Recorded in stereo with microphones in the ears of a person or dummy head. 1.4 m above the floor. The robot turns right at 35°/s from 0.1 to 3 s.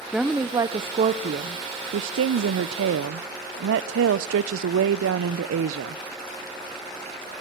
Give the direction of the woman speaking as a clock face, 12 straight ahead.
6 o'clock.